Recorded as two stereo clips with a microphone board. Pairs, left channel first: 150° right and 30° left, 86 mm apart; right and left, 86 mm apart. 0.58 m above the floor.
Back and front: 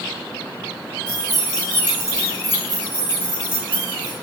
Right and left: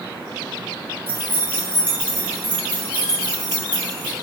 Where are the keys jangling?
140° left, 0.8 m; by 4.1 s 5° left, 1.6 m.